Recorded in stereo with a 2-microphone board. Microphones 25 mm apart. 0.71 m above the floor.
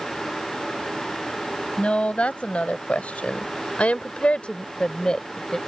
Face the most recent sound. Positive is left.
turn(degrees=30)  # may be behind; listen again after turning